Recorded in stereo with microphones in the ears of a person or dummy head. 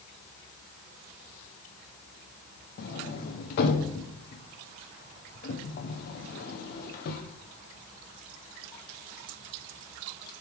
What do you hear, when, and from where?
2.8 s a sliding door: 60° left (ahead or behind), 1.0 m